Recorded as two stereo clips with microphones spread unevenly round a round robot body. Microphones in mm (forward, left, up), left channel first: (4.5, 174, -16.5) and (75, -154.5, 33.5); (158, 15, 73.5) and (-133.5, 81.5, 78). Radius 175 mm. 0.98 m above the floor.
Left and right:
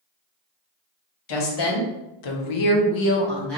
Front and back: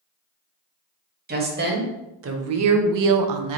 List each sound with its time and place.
1.3 s a woman speaking: 105° left, 1.3 m; by 3.6 s 170° right, 0.5 m